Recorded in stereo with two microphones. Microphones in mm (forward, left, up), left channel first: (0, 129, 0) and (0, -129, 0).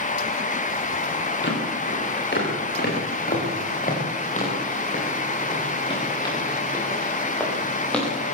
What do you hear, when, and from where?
1.4 s footsteps: 45° left (ahead or behind), 9.5 m; by 8.1 s 5° left (ahead or behind), 9.5 m